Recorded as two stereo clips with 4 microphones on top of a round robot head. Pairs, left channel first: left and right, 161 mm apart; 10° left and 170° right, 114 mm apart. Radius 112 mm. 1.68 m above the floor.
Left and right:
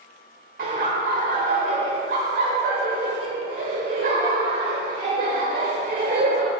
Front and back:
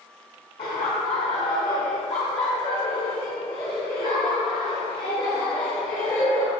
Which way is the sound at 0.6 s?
55° right.